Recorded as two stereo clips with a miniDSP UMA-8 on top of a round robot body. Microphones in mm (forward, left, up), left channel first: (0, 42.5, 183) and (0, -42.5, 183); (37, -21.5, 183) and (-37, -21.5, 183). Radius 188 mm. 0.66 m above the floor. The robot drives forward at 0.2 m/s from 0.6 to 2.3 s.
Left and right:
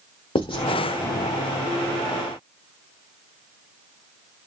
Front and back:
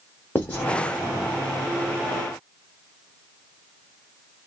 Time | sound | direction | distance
0.3 | writing | 70° left | 0.6 m